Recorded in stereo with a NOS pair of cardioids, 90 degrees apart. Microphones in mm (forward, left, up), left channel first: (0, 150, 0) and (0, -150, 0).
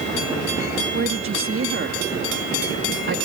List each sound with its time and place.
0.9 s a woman speaking: 40° right